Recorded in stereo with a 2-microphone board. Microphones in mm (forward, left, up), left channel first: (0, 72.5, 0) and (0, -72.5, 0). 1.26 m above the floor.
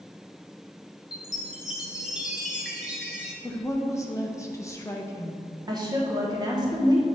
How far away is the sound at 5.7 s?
About 1.3 m.